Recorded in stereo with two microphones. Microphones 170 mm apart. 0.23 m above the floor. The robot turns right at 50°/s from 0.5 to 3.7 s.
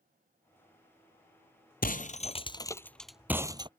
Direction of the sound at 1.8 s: 65° left (ahead or behind).